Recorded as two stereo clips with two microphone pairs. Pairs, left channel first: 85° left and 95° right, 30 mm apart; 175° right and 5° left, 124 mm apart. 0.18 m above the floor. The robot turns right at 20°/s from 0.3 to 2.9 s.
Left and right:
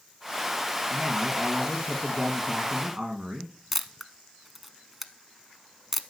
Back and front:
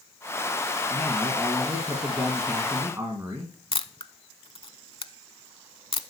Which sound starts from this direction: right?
A man speaking, at 0.9 s.